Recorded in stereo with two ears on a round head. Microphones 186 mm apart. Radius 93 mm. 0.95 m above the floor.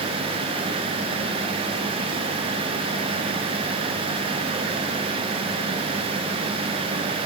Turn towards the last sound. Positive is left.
No sound to turn to.